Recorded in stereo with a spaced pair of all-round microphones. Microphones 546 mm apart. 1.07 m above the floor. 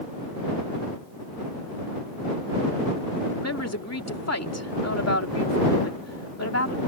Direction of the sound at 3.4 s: 30° left (ahead or behind).